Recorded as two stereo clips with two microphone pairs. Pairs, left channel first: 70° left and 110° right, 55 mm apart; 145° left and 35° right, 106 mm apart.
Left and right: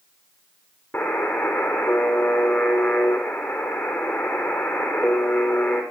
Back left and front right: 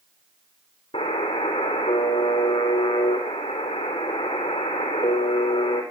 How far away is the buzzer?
About 4 m.